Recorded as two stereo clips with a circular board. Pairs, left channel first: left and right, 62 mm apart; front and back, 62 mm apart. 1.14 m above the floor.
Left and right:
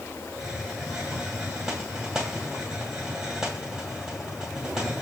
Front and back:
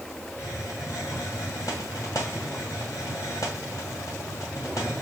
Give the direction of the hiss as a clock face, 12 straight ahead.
12 o'clock.